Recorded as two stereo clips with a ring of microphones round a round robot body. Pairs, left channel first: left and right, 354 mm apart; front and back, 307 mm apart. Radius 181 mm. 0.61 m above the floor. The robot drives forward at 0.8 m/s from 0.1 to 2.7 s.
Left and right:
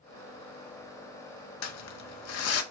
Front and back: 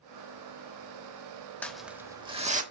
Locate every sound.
1.6 s crumpling: 85° left, 1.5 m; by 2.6 s 125° left, 1.6 m